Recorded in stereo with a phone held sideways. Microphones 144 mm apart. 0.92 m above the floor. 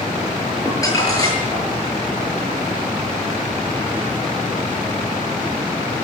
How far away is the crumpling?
About 7.5 m.